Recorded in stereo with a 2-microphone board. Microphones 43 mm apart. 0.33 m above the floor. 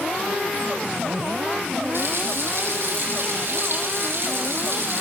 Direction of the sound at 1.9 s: 65° right (ahead or behind).